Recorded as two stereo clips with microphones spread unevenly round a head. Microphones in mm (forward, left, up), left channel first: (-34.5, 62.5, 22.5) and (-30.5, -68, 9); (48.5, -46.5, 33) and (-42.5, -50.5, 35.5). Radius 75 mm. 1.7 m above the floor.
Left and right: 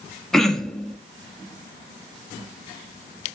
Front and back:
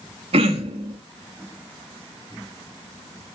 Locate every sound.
0.3 s throat clearing: 175° left, 1.6 m